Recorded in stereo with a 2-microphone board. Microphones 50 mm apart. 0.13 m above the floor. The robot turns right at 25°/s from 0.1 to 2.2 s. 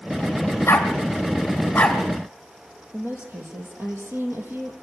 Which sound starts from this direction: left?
A dog barking, at 0.7 s.